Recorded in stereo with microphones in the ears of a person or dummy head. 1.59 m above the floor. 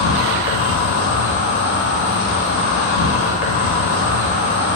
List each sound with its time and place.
0.0 s an insect: 55° left (ahead or behind), 0.8 m